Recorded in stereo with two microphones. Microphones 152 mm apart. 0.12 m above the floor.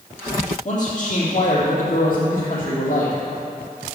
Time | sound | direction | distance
0.7 | a man speaking | 55° left (ahead or behind) | 3.5 m